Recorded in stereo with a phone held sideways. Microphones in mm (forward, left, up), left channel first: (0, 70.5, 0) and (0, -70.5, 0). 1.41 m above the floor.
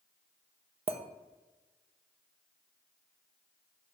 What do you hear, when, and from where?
0.9 s a clink: 45° right (ahead or behind), 0.5 m